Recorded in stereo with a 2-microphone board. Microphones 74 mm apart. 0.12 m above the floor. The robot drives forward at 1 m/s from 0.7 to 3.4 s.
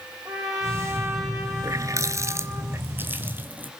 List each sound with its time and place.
0.2 s a trumpet: 45° right (ahead or behind), 5.5 m; by 2.6 s 65° right (ahead or behind), 4.5 m
1.6 s a running tap: 45° right (ahead or behind), 1.2 m; by 3.7 s 25° right (ahead or behind), 2 m